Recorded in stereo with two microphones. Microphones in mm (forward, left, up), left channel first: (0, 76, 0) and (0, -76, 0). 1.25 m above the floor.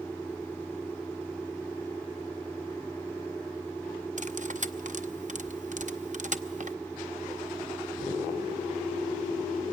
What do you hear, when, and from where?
4.2 s cutlery clinking: 55° right (ahead or behind), 0.7 m